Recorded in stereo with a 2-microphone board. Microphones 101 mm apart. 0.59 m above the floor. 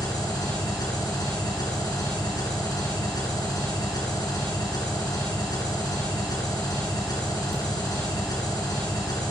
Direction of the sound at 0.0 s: 40° left (ahead or behind).